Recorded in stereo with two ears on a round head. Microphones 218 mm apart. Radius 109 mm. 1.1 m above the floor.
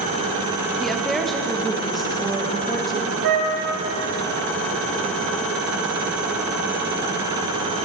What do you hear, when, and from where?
0.8 s a woman speaking: centre (ahead or behind), 1.0 m
3.2 s a flute: 70° right (ahead or behind), 2.5 m